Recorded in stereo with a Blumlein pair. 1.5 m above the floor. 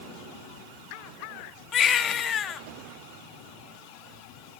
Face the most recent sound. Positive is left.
turn(degrees=25)